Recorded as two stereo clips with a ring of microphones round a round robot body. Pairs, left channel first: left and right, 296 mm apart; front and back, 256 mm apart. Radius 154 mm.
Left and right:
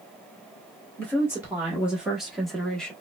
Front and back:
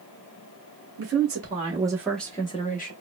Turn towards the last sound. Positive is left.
turn(degrees=5)